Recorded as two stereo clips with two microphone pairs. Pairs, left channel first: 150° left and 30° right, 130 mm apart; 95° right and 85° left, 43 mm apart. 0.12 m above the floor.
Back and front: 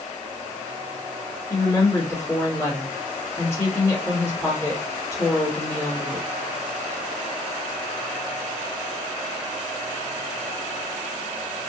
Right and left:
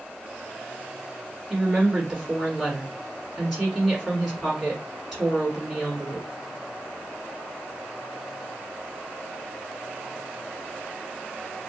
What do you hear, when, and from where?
1.5 s a woman speaking: 170° left, 1.5 m